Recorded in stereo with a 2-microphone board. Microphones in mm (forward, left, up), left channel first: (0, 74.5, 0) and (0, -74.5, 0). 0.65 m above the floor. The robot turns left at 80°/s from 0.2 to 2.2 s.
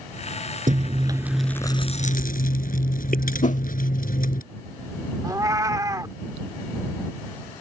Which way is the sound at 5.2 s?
20° right (ahead or behind).